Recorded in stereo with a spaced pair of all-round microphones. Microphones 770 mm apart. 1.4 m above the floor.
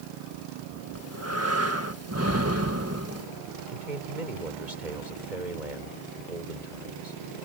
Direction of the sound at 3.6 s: 70° right (ahead or behind).